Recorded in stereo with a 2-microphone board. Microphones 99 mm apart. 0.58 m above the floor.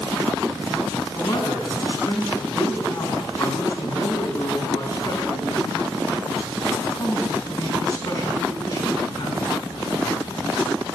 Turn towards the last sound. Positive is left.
turn(degrees=35)  # may be behind; listen again after turning